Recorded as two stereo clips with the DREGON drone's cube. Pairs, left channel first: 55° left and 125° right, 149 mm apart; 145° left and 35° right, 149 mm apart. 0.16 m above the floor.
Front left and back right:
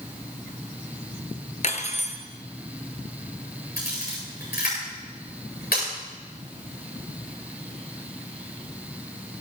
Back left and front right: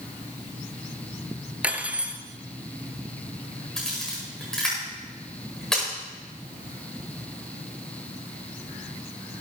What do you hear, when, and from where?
1.6 s cutlery clinking: 45° left, 1.3 m
3.8 s a camera shutter: 60° left, 8.5 m